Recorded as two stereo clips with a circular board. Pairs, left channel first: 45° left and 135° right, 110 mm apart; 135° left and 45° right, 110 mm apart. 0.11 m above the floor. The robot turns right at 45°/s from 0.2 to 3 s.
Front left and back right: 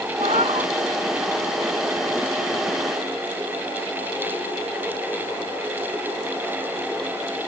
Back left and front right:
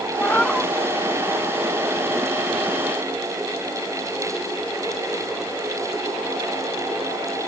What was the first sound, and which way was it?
A cat meowing, 155° right.